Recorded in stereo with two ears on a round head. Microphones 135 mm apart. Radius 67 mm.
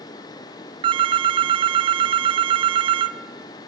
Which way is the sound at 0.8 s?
35° right (ahead or behind).